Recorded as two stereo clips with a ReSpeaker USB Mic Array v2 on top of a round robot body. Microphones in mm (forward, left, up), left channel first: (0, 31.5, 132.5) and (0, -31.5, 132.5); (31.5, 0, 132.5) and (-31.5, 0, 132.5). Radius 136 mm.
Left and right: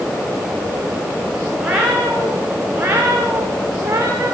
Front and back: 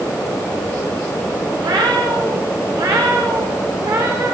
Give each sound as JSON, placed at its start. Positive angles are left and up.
{"t": 1.6, "sound": "a cat meowing", "azimuth_deg": -165, "distance_m": 10.0}